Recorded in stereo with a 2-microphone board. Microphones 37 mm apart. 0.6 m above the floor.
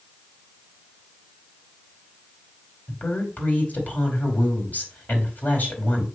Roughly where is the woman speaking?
Left.